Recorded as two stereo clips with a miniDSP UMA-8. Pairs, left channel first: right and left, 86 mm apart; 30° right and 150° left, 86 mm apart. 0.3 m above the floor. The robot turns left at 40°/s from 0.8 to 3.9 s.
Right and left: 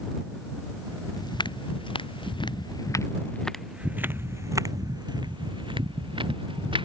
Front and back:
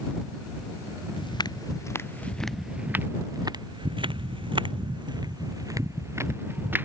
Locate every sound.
1.2 s footsteps: 50° right; by 6.8 s 85° left